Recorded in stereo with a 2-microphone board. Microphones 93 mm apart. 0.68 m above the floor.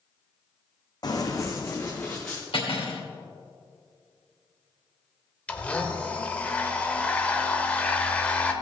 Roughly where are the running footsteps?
Left.